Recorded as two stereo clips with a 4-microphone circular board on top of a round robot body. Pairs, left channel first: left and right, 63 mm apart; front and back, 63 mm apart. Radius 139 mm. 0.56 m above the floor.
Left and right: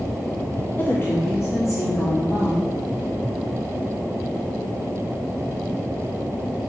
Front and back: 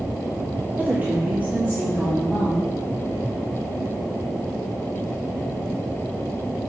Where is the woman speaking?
130° left, 1.2 m; by 2.7 s 120° left, 2 m.